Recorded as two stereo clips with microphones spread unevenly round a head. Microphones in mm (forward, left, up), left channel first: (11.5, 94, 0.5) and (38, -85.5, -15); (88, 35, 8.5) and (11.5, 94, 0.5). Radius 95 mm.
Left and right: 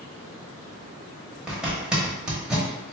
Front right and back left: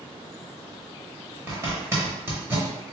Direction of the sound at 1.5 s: 175° right.